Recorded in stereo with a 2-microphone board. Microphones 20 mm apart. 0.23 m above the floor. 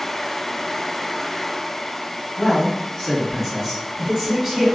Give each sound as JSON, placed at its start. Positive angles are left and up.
{"t": 2.4, "sound": "a man speaking", "side_deg": 25, "distance_m": 1.7}